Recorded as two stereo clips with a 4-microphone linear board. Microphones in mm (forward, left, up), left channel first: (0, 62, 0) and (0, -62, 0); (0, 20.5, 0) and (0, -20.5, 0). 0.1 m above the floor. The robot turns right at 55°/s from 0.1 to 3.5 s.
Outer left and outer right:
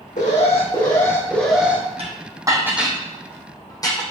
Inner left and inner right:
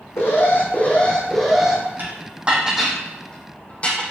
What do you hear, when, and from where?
0.2 s an alarm: 105° left, 3.5 m; by 1.8 s 165° right, 3.5 m
2.0 s dishes clattering: 50° right (ahead or behind), 3 m; by 4.1 s 30° left (ahead or behind), 3 m